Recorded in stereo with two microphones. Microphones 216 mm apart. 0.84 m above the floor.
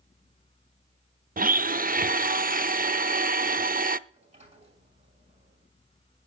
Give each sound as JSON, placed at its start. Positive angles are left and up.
{"t": 1.4, "sound": "a blender", "side_deg": -40, "distance_m": 0.5}
{"t": 4.1, "sound": "a sliding door", "side_deg": -30, "distance_m": 5.5}